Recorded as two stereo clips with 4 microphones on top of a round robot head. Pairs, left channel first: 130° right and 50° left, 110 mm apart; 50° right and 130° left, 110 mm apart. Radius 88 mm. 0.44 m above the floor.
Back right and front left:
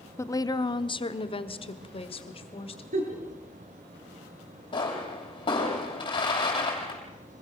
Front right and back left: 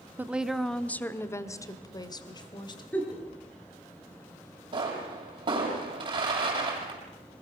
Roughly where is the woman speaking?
Behind.